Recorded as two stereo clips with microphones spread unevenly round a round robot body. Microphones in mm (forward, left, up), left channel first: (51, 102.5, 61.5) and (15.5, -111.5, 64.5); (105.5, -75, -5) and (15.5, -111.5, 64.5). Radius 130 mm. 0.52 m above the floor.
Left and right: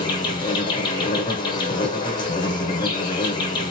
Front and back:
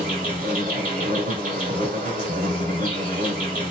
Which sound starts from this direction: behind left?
An insect, at 0.0 s.